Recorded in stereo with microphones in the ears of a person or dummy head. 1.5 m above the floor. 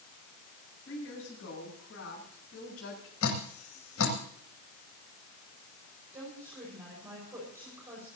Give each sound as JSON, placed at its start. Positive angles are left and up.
{"t": 0.9, "sound": "a woman speaking", "side_deg": 70, "distance_m": 9.5}
{"t": 3.2, "sound": "dripping", "side_deg": 85, "distance_m": 9.0}
{"t": 6.1, "sound": "a woman speaking", "side_deg": -15, "distance_m": 6.0}